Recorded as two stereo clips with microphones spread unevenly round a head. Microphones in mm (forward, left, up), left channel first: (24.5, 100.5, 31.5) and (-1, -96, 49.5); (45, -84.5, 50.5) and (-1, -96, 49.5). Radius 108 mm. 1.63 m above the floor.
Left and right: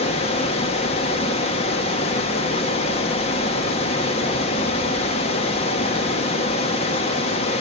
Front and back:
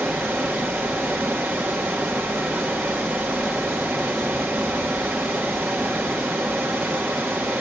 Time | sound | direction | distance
0.0 | running water | 125° left | 1.0 m